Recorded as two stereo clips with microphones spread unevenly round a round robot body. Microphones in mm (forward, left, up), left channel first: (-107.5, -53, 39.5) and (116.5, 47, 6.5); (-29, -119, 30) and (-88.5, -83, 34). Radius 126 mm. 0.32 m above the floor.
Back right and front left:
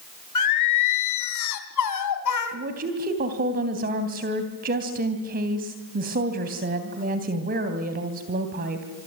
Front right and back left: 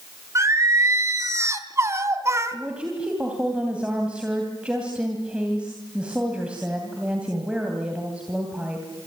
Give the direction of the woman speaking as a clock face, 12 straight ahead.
10 o'clock.